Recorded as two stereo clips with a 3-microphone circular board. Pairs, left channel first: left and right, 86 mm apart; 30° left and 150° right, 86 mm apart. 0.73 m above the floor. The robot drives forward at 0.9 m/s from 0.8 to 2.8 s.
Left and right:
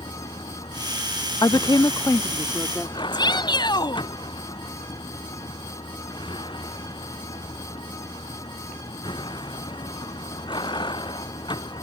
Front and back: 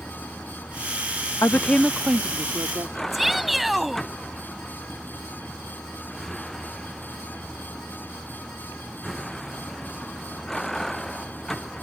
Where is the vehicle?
110° left; by 11.8 s 115° left.